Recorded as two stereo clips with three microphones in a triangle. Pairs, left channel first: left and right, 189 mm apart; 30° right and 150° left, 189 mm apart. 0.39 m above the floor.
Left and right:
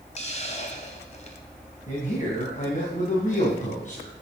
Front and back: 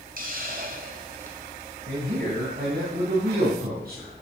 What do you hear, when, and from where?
0.2 s a hiss: 135° left, 2 m
1.9 s a man speaking: 130° left, 3.5 m